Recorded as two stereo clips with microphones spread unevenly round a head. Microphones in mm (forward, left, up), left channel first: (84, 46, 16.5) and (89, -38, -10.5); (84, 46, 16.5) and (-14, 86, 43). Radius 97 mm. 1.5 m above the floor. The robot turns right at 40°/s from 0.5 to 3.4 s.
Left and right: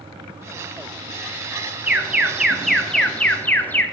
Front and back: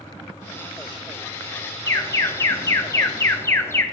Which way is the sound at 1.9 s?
50° right.